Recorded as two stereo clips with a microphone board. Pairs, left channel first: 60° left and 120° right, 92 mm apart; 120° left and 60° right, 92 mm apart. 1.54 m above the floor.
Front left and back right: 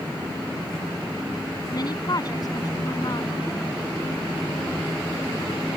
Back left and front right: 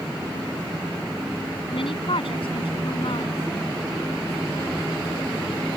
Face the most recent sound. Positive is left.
turn(degrees=105)